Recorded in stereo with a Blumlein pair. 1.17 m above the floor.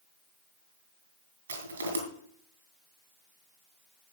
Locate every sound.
1.5 s crushing: 70° right, 5 m